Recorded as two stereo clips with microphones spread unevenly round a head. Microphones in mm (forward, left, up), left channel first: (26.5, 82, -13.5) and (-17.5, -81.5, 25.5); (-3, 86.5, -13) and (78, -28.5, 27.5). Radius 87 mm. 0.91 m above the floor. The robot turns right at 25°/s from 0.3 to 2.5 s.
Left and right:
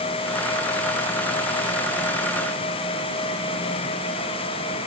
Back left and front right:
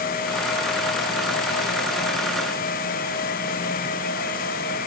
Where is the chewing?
No chewing in this recording.